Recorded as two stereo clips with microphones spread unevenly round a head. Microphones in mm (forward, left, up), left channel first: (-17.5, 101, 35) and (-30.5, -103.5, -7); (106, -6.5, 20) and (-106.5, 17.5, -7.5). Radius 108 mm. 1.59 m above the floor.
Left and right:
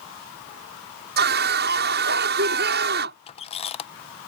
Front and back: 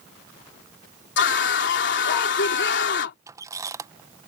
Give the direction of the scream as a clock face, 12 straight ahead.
2 o'clock.